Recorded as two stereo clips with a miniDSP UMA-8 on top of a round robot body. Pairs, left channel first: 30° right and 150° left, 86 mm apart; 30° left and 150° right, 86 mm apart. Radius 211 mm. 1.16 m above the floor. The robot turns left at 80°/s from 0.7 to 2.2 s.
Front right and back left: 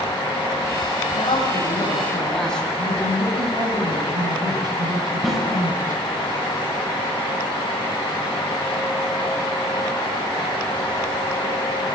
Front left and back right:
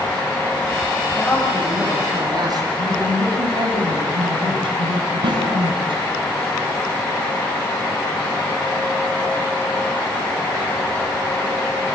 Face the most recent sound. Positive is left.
turn(degrees=-120)